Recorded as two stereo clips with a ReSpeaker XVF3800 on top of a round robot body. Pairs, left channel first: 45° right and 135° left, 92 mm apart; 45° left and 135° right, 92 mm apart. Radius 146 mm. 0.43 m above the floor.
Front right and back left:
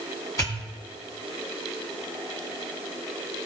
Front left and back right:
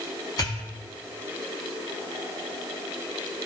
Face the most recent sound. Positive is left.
turn(degrees=5)